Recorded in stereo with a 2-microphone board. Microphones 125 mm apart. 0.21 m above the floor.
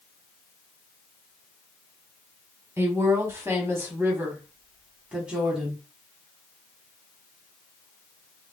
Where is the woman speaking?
25° right (ahead or behind), 1.3 m; by 5.8 s 5° right (ahead or behind), 1.5 m.